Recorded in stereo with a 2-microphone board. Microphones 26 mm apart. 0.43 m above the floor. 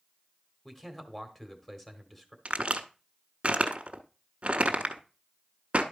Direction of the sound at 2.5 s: 55° right (ahead or behind).